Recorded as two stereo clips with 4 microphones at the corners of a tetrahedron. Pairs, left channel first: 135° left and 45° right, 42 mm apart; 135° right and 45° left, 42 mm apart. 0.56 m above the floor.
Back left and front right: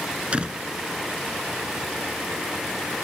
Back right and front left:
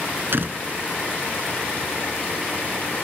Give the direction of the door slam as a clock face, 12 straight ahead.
11 o'clock.